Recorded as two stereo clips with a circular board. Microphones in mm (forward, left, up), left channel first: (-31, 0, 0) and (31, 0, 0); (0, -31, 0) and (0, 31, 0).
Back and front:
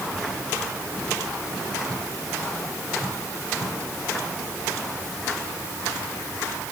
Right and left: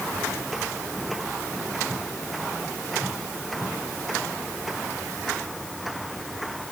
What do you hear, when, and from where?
Only background noise.